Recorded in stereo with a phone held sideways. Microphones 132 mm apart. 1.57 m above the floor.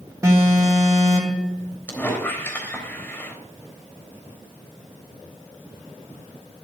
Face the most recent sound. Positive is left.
turn(degrees=15)  # may be behind; listen again after turning